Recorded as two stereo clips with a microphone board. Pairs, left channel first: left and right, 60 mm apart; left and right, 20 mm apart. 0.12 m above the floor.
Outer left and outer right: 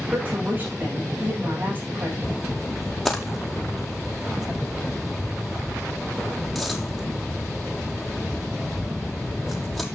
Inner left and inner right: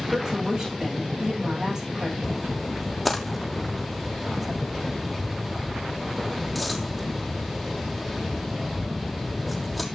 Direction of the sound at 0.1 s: 30° right (ahead or behind).